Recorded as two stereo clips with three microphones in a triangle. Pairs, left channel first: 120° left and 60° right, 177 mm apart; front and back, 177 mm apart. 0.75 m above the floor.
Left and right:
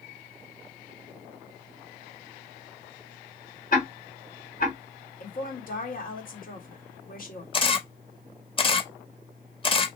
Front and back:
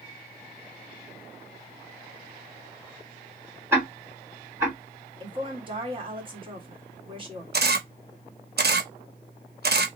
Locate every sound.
3.7 s ticking: 105° left, 1.6 m
5.2 s a woman speaking: 125° left, 1.5 m
7.5 s a camera shutter: straight behind, 0.7 m